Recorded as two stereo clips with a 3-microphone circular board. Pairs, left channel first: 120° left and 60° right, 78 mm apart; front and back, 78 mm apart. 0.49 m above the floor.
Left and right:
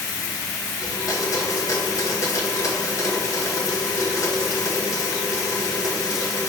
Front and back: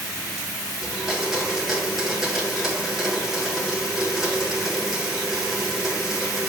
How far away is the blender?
About 2 m.